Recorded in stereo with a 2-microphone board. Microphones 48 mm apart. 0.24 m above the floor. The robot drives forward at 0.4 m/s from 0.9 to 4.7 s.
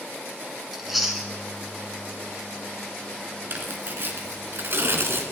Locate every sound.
0.7 s chewing: centre (ahead or behind), 2.5 m
3.5 s tearing paper: 45° right (ahead or behind), 2 m; by 5.2 s 55° right (ahead or behind), 2 m